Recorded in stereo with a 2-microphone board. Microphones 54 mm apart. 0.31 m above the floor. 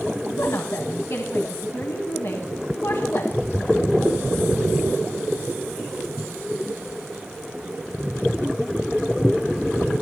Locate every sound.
0.3 s a woman speaking: 60° left (ahead or behind), 1.8 m